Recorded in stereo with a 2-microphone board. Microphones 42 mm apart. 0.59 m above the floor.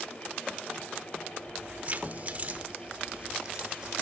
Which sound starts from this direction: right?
Keys jangling, at 1.4 s.